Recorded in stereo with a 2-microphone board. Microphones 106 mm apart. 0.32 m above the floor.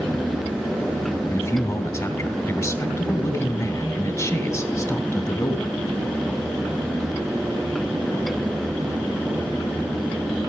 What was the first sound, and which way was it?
A man speaking, 30° left (ahead or behind).